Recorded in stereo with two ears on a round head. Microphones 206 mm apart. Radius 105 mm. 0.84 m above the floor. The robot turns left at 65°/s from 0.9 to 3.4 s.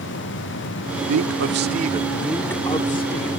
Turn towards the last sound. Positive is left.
turn(degrees=115)